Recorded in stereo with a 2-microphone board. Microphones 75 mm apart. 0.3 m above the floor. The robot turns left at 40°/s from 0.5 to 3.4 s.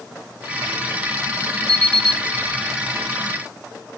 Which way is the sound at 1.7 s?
55° right (ahead or behind).